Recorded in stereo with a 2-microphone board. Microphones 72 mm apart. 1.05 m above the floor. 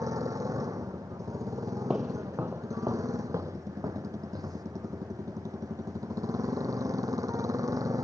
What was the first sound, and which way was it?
A motorcycle, 50° right (ahead or behind).